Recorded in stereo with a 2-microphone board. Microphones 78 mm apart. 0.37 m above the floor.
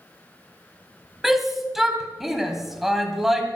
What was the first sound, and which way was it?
A shout, 5° right (ahead or behind).